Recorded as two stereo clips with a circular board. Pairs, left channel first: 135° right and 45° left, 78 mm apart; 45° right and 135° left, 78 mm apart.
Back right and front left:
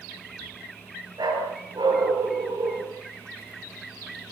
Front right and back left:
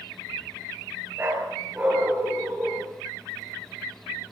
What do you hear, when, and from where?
1.2 s a dog barking: 70° left, 5.5 m; by 2.9 s 65° left, 7 m